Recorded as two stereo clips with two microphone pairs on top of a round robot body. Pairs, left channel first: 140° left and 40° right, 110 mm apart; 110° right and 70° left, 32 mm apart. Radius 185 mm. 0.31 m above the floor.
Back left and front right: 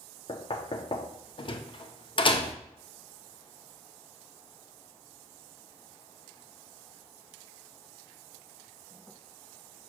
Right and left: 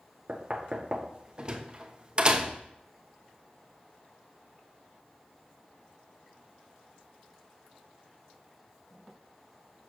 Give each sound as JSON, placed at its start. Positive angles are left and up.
{"t": 0.3, "sound": "knocking", "azimuth_deg": 125, "distance_m": 0.8}